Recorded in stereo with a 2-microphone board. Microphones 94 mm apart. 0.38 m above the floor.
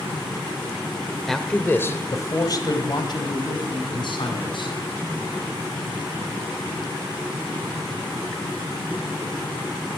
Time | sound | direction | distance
1.3 | a man speaking | centre (ahead or behind) | 1.0 m